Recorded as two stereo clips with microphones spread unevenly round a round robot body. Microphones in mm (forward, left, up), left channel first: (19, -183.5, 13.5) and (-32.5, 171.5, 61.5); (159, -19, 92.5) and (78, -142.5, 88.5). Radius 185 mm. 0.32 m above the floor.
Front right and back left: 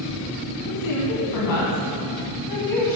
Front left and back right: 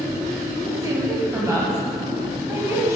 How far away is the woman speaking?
About 2.5 m.